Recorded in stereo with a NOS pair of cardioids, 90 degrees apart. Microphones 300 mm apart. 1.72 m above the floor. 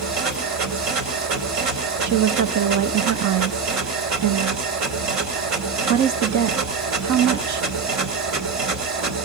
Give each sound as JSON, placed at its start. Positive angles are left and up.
{"t": 0.0, "sound": "a machine running", "azimuth_deg": -70, "distance_m": 2.5}
{"t": 2.0, "sound": "a woman speaking", "azimuth_deg": -65, "distance_m": 1.2}